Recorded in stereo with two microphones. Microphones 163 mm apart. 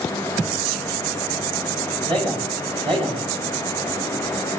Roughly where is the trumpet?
I don't hear a trumpet.